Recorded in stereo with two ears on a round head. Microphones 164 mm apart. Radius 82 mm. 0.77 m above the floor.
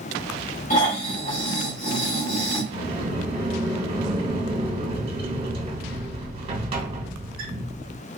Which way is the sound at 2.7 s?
30° right (ahead or behind).